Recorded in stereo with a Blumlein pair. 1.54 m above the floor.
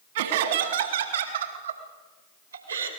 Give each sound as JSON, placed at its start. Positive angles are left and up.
{"t": 0.1, "sound": "laughter", "azimuth_deg": -55, "distance_m": 3.0}